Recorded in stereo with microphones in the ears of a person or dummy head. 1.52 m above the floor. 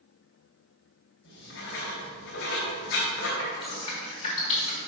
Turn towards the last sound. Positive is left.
turn(degrees=35)  # may be behind; listen again after turning